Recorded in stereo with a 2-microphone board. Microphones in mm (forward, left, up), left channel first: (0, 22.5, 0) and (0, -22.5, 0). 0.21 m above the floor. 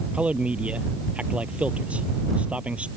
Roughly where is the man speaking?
Right.